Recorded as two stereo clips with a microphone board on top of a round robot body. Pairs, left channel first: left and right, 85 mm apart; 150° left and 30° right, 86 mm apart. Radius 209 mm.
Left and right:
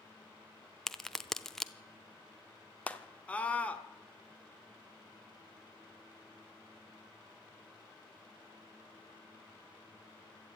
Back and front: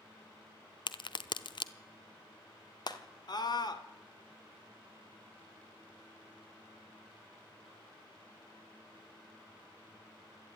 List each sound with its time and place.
0.9 s a crack: 175° left, 0.8 m
2.9 s a scream: 160° left, 2.0 m